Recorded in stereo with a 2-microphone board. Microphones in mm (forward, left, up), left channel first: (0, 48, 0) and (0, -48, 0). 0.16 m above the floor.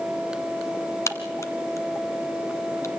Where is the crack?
30° left (ahead or behind), 1.5 m.